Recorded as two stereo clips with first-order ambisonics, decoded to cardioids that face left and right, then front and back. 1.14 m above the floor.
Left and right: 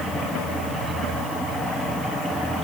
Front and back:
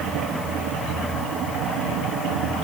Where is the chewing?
No chewing in this recording.